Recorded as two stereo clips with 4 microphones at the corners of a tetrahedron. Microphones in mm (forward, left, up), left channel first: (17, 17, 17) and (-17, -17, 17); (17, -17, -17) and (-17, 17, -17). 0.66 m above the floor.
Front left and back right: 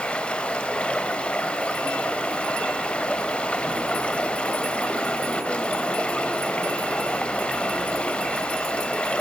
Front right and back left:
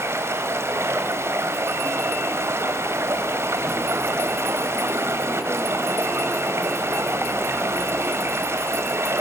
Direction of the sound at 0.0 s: 115° left.